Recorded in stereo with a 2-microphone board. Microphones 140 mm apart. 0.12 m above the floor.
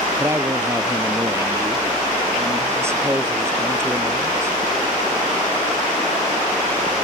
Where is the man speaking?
20° right (ahead or behind).